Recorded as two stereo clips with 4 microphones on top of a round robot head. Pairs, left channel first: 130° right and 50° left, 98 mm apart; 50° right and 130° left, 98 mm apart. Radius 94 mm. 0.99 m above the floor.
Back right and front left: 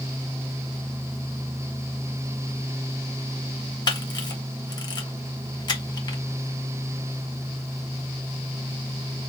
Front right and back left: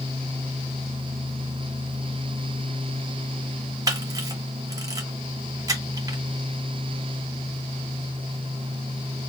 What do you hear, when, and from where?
3.9 s a camera shutter: 175° right, 1.9 m